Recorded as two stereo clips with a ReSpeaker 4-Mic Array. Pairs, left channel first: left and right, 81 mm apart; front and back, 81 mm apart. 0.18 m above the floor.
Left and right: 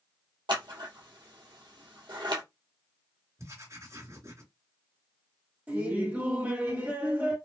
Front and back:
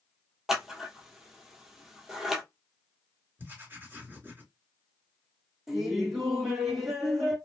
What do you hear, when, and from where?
0.5 s scissors: 95° right, 1.3 m
3.4 s writing: 125° right, 2.5 m
5.7 s laughter: 105° right, 1.7 m